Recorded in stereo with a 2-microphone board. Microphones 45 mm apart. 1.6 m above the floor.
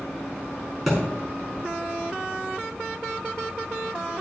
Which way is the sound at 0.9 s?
Centre (ahead or behind).